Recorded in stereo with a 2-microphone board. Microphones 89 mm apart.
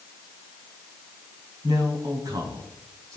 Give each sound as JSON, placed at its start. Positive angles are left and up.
{"t": 1.6, "sound": "a man speaking", "side_deg": -50, "distance_m": 2.5}